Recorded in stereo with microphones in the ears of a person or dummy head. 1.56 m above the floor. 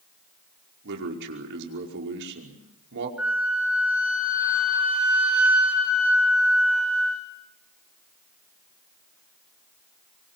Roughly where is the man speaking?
Right.